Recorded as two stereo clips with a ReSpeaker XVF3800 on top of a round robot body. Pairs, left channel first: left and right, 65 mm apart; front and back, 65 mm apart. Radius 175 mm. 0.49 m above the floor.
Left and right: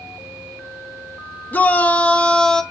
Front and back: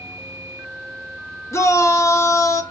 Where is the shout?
30° left, 1.9 m; by 2.6 s 10° left, 1.7 m.